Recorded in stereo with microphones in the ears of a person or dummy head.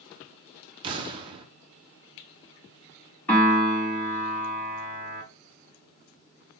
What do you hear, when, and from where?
0.8 s an explosion: 25° right (ahead or behind), 0.6 m
3.3 s a piano: 10° left (ahead or behind), 1.9 m